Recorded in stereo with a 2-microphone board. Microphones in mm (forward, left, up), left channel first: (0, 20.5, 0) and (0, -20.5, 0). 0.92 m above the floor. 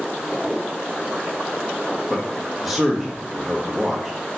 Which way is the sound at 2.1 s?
5° right (ahead or behind).